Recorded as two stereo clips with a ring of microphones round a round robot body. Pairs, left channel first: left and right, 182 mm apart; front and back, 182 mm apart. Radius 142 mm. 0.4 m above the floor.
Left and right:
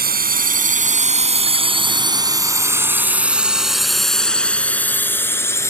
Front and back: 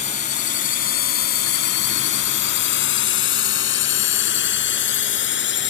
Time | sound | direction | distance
0.0 | a drone | 60° right | ?